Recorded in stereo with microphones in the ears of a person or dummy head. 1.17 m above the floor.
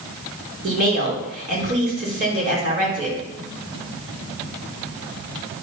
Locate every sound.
0.6 s a woman speaking: 40° right (ahead or behind), 3.5 m